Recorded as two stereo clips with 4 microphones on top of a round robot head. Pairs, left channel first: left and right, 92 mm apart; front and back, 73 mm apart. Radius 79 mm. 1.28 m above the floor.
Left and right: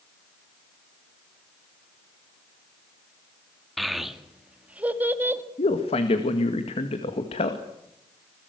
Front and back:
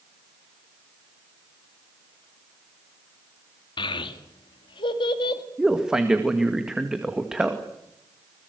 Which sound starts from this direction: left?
A man speaking, at 5.6 s.